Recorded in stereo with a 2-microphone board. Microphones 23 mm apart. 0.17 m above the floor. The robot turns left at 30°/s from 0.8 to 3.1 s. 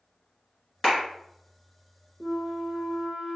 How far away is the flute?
About 1.0 m.